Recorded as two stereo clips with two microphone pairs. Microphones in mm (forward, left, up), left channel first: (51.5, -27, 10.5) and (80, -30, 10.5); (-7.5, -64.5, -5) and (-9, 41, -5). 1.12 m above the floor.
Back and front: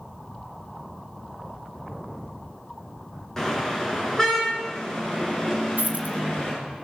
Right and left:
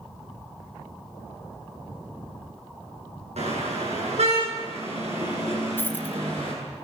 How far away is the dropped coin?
About 2 m.